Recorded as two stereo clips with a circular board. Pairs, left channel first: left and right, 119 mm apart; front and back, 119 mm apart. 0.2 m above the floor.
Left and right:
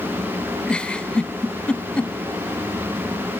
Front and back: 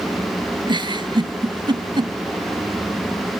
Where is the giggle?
165° left.